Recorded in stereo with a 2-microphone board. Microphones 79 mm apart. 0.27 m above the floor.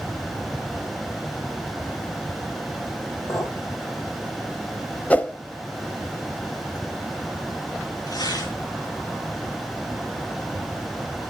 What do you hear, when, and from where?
3.3 s a clink: 40° left (ahead or behind), 5 m
5.1 s a whoosh: 20° left (ahead or behind), 0.5 m
8.1 s tearing paper: 55° left (ahead or behind), 3.5 m